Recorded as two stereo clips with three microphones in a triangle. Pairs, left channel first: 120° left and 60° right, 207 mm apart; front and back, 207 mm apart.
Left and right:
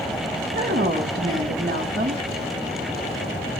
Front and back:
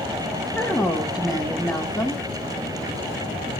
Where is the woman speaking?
90° right, 1.4 m.